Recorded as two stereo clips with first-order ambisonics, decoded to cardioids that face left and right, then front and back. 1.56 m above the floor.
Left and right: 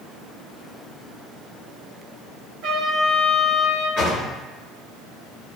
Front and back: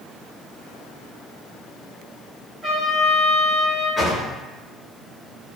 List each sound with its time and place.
2.6 s a trumpet: 110° right, 0.9 m
4.0 s a drawer: 90° left, 1.2 m